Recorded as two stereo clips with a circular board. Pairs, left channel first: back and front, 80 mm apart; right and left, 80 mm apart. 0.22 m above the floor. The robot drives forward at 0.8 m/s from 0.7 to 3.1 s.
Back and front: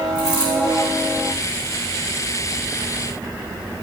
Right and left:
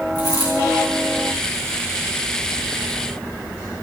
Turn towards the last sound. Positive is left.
turn(degrees=145)